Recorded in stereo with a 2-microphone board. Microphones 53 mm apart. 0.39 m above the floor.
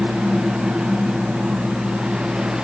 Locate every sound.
Only background noise.